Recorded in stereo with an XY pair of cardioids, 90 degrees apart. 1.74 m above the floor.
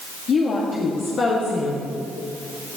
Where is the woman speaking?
60° left, 1.4 m.